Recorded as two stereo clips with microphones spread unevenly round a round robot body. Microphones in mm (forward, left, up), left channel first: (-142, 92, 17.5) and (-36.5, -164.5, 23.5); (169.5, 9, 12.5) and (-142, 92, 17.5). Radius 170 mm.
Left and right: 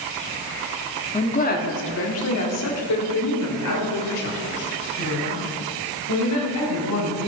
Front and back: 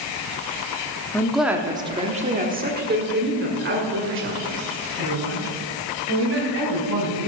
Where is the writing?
I don't hear writing.